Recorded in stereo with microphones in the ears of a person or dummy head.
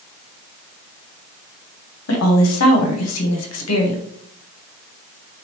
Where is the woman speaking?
75° left (ahead or behind), 1.0 m.